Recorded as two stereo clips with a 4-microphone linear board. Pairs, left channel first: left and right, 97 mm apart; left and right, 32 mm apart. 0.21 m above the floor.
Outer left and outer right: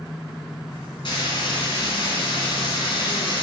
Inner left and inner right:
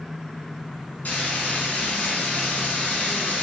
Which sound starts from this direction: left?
Frying, at 1.1 s.